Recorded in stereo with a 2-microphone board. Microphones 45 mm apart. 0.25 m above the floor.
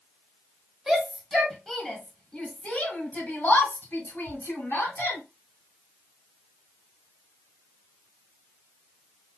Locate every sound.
0.9 s a shout: 10° right (ahead or behind), 1.7 m; by 5.2 s 55° left (ahead or behind), 2.5 m